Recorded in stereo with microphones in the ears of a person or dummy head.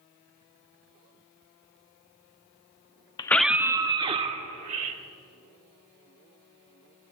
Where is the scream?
25° left (ahead or behind), 0.5 m; by 5.0 s 40° right (ahead or behind), 2 m.